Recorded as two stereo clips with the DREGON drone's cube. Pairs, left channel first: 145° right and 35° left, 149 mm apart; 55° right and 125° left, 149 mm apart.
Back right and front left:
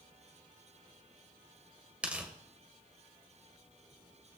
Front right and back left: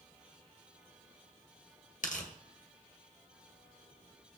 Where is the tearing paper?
45° right, 1.9 m.